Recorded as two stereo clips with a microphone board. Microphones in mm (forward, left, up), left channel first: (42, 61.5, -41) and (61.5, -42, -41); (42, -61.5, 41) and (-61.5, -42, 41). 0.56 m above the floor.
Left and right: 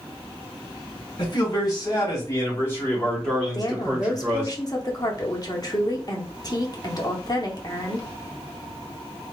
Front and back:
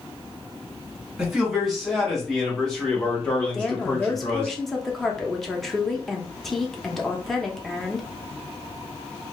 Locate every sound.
1.2 s a man speaking: 85° left, 1.9 m; by 4.5 s 55° right, 1.4 m
3.5 s a woman speaking: 75° left, 0.7 m